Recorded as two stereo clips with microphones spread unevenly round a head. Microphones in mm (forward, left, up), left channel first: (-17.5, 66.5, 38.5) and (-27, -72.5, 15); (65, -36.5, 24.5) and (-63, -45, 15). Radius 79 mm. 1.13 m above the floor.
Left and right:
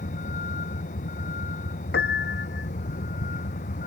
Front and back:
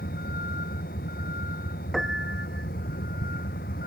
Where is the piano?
95° left.